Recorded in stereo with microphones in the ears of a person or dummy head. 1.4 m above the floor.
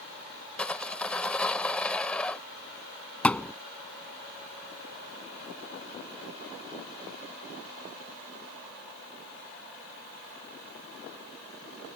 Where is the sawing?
5° left (ahead or behind).